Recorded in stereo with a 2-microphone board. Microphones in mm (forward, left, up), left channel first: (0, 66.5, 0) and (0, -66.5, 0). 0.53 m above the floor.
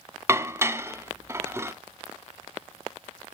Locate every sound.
0.3 s dishes clattering: 20° right (ahead or behind), 0.6 m